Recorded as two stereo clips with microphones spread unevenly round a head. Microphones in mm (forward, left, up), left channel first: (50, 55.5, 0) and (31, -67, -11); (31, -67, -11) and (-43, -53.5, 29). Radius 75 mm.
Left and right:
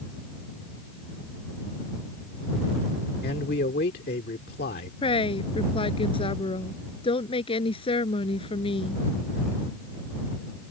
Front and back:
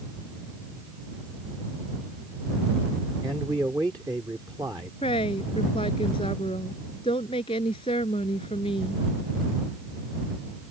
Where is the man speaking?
100° left.